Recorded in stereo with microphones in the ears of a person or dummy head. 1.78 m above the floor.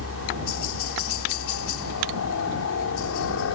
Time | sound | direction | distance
0.0 | a helicopter | 75° left (ahead or behind) | ?